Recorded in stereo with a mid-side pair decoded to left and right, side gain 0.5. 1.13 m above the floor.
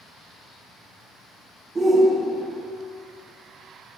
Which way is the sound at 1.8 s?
25° right.